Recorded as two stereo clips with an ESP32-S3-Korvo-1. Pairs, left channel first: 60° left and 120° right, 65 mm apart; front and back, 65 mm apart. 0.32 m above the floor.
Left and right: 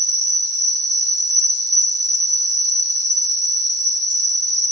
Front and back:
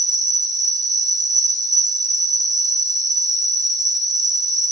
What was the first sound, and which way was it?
An insect, 160° right.